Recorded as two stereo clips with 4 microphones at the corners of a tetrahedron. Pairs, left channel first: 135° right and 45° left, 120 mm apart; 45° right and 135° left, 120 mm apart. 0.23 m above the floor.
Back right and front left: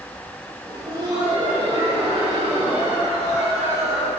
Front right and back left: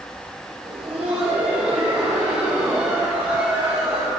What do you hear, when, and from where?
0.7 s laughter: 100° left, 3 m; by 4.1 s 75° left, 6.5 m